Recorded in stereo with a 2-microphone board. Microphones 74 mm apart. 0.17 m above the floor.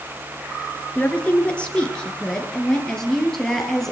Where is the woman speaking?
20° left (ahead or behind), 2.5 m; by 3.9 s 5° left (ahead or behind), 4 m.